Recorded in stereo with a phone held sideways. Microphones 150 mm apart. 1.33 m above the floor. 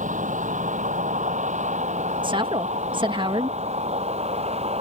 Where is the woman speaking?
35° right (ahead or behind).